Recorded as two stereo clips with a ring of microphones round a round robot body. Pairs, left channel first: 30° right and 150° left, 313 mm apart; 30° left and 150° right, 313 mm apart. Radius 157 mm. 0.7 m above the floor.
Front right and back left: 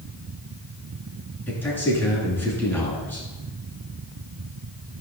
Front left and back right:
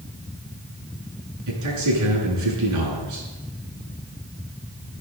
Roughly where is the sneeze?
No sneeze in this recording.